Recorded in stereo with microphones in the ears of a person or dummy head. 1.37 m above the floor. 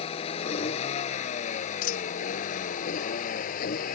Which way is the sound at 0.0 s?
35° left (ahead or behind).